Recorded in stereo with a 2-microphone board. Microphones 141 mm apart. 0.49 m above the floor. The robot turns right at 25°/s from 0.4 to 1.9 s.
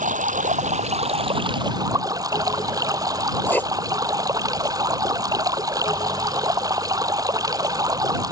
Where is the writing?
15° left (ahead or behind).